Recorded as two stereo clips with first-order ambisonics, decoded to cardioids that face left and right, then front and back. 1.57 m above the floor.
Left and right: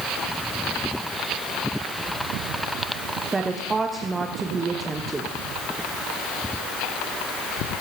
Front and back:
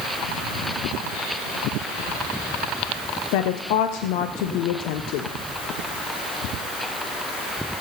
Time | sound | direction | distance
3.3 | a woman speaking | 15° right | 0.8 m